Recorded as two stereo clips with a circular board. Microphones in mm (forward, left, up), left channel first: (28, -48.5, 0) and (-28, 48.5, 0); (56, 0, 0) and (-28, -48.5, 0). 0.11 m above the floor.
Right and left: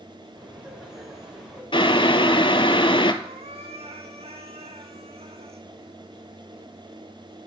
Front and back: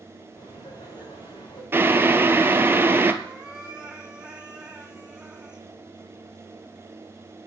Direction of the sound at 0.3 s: 40° left.